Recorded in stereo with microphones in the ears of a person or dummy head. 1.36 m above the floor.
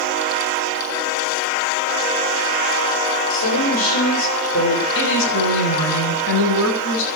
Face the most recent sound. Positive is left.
turn(degrees=75)  # may be behind; listen again after turning